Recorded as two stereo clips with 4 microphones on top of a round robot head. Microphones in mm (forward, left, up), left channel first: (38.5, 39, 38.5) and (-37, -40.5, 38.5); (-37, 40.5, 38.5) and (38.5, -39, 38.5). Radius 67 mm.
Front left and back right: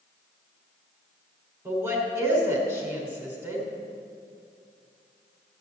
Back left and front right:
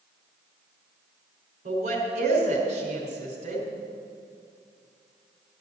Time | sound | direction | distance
1.6 | a woman speaking | 65° right | 3.5 m